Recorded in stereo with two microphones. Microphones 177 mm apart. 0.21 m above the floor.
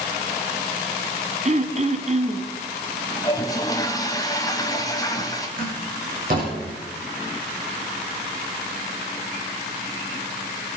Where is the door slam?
55° right (ahead or behind), 8 m.